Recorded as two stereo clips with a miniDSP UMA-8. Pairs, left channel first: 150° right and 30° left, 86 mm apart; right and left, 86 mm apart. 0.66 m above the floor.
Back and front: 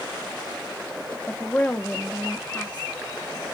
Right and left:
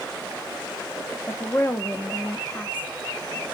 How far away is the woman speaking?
About 0.6 m.